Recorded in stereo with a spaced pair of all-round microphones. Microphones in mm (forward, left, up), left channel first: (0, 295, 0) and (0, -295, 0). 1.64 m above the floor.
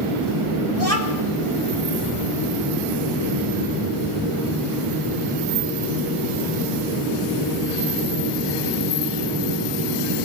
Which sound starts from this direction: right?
A child speaking, at 0.8 s.